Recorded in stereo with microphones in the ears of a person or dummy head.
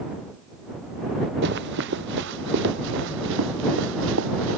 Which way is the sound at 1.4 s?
60° right (ahead or behind).